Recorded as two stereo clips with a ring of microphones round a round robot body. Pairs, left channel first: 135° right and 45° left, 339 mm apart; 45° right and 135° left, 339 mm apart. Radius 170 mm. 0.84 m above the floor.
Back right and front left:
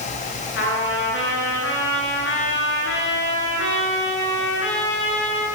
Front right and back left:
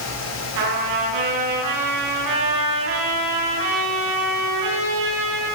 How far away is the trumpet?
About 10 m.